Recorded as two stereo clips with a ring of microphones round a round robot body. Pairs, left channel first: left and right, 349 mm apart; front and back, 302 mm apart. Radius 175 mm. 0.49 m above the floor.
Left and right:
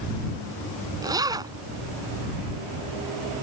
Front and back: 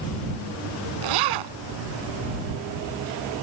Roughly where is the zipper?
Behind.